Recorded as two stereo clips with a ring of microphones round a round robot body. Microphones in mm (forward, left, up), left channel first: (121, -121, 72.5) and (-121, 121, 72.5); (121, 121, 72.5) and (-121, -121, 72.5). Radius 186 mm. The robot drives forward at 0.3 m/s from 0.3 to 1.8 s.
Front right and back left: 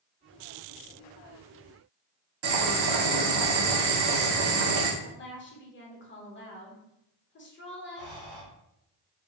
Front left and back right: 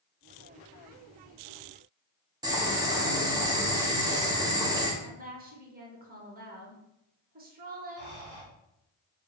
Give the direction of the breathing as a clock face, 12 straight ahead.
6 o'clock.